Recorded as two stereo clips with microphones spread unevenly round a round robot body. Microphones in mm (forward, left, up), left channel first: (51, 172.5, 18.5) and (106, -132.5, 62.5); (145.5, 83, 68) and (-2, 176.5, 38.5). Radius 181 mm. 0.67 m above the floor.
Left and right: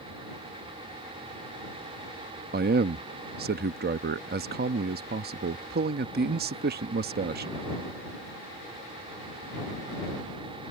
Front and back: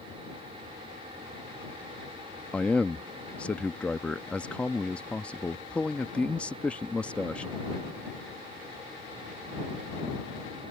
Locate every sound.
2.5 s a man speaking: 125° right